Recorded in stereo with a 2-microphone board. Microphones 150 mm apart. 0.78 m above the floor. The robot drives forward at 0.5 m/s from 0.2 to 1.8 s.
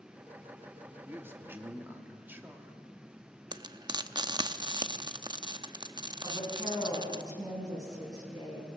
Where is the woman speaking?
25° right (ahead or behind), 7 m.